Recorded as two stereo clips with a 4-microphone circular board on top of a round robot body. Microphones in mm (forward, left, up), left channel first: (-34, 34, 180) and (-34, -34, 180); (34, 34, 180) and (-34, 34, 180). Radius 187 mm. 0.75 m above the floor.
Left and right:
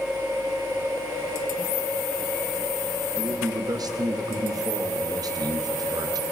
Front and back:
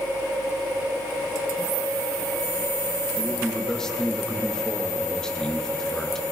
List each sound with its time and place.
3.2 s a man speaking: 80° right, 1.4 m